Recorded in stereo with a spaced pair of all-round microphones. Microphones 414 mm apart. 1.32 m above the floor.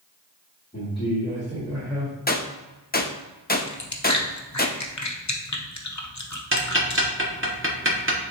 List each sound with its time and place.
0.7 s a man speaking: 15° left (ahead or behind), 2.5 m; by 2.1 s 5° left (ahead or behind), 4.5 m
2.3 s a gunshot: 25° left (ahead or behind), 0.5 m
3.7 s chewing: 40° left (ahead or behind), 0.8 m
6.5 s ticking: 30° right (ahead or behind), 1.1 m